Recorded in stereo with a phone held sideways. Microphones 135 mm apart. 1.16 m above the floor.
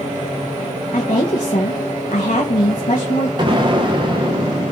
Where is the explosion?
35° right (ahead or behind), 1.0 m.